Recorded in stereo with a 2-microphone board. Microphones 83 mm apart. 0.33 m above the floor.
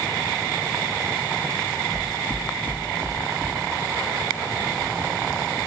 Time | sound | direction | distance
1.9 | footsteps | 45° right (ahead or behind) | 2.5 m